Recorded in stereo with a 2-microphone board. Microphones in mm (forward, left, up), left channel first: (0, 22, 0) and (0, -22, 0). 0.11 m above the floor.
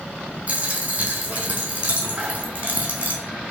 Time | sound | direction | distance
0.5 | a dropped coin | 35° right (ahead or behind) | 1.1 m